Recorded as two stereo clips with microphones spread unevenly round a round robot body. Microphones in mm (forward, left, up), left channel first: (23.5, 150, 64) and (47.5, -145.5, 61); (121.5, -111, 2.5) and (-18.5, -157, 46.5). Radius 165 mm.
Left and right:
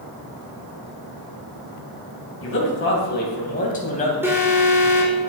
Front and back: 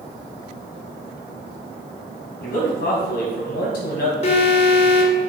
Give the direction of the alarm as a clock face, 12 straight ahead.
12 o'clock.